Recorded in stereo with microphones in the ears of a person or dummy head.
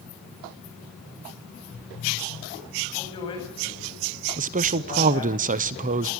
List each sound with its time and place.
3.0 s a man speaking: 30° left (ahead or behind), 8 m
4.4 s a man speaking: 35° right (ahead or behind), 0.7 m